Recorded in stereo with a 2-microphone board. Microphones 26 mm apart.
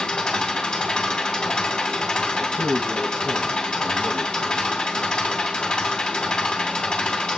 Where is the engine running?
35° left (ahead or behind), 2.5 m.